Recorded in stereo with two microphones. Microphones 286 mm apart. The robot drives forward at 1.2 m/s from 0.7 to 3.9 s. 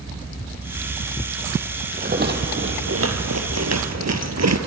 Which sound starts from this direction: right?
A rattle, at 1.9 s.